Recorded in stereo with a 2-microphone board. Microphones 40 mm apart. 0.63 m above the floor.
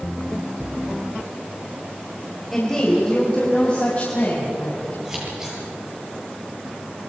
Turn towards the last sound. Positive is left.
turn(degrees=-15)  # may be behind; listen again after turning